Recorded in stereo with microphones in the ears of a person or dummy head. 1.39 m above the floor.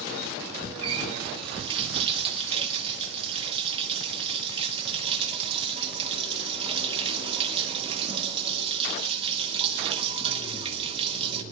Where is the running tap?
30° right (ahead or behind), 1.4 m.